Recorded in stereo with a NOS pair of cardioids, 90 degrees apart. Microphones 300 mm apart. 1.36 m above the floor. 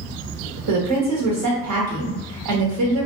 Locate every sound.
0.7 s a woman speaking: 65° right, 0.9 m